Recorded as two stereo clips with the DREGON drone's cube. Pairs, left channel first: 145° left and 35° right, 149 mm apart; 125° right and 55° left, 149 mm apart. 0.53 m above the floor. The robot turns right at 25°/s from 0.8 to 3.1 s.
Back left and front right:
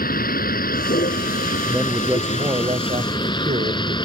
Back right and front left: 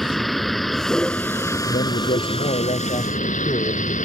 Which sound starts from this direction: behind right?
A man speaking, at 1.7 s.